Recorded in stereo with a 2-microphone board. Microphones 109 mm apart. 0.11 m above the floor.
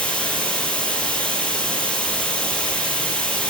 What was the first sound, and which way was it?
Running water, 10° left (ahead or behind).